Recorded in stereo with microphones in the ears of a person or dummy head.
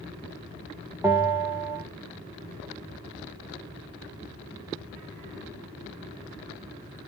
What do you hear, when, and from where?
1.0 s a bell: 5° right (ahead or behind), 0.6 m